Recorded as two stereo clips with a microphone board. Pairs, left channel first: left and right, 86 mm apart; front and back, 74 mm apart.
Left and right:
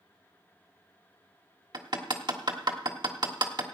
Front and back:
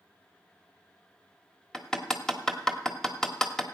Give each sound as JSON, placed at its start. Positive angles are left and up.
{"t": 1.7, "sound": "hammering", "azimuth_deg": -80, "distance_m": 1.4}